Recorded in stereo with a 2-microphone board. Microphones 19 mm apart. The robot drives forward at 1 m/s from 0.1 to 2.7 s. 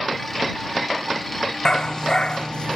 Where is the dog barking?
35° left (ahead or behind); by 2.8 s 50° left (ahead or behind).